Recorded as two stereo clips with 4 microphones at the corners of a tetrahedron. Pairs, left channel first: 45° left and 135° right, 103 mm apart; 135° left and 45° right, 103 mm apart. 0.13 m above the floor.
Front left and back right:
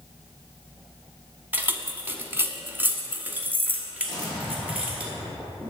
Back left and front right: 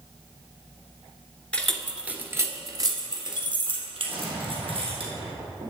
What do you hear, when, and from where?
1.5 s keys jangling: 165° right, 0.7 m; by 5.0 s 60° right, 2 m
4.0 s an explosion: 35° right, 3.5 m